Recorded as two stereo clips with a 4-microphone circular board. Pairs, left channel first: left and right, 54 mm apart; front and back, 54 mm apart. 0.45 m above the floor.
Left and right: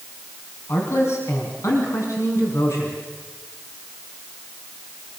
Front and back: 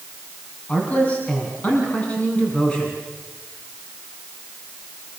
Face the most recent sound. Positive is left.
turn(degrees=70)